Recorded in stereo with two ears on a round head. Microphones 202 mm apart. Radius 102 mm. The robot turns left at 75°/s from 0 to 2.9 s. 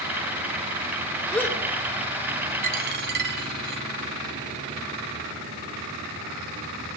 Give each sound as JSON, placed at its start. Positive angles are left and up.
{"t": 1.3, "sound": "a gasp", "side_deg": 0, "distance_m": 2.5}
{"t": 2.6, "sound": "a dropped coin", "side_deg": -35, "distance_m": 2.0}